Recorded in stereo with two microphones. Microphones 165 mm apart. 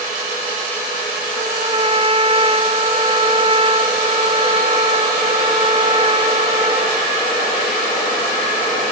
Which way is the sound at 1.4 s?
30° right (ahead or behind).